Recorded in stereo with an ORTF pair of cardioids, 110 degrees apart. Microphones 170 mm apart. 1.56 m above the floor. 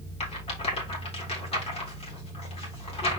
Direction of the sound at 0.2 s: 35° left.